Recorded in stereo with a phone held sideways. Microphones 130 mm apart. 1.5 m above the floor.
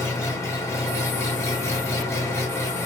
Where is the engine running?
20° left (ahead or behind), 0.8 m.